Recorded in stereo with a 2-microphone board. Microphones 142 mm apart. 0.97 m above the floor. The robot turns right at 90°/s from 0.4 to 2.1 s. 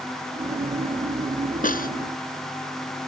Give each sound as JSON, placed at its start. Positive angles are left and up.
{"t": 1.6, "sound": "a snare drum", "side_deg": 65}